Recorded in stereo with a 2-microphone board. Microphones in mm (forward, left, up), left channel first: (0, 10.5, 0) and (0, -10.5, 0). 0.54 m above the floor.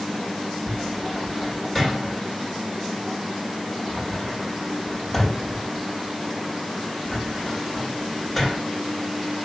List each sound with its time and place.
0.7 s a cupboard door: centre (ahead or behind), 3 m